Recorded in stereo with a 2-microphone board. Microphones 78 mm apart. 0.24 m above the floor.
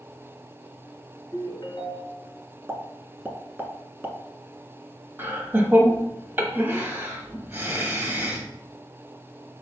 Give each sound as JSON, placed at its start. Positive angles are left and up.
{"t": 1.3, "sound": "a ringtone", "side_deg": 55, "distance_m": 1.4}
{"t": 2.7, "sound": "a pop", "side_deg": -25, "distance_m": 0.7}
{"t": 5.2, "sound": "laughter", "side_deg": -25, "distance_m": 1.0}